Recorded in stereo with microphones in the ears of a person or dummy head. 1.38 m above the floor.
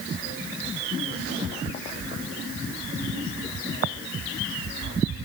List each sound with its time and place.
Only background noise.